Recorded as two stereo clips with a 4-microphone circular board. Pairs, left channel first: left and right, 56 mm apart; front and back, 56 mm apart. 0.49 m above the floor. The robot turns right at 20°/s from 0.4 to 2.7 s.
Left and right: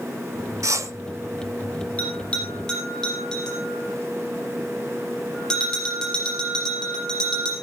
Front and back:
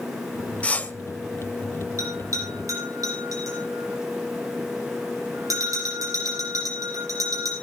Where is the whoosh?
65° right, 0.8 m; by 0.9 s 60° right, 0.8 m.